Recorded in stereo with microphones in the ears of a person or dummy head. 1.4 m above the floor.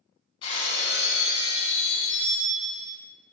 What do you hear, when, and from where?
0.4 s breaking glass: 30° left (ahead or behind), 1.5 m